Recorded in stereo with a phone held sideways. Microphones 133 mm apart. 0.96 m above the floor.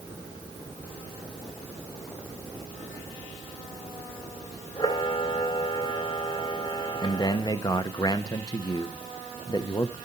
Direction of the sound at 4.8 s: 35° left (ahead or behind).